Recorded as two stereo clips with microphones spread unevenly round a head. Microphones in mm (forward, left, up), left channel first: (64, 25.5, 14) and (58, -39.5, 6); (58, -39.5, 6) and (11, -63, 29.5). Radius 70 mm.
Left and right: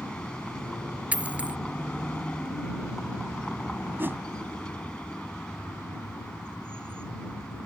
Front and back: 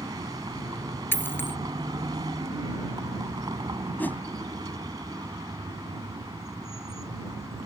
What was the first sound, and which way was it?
A vehicle, 170° left.